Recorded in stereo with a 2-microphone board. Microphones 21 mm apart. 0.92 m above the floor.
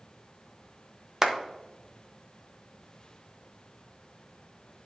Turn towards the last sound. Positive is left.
turn(degrees=-25)  # may be behind; listen again after turning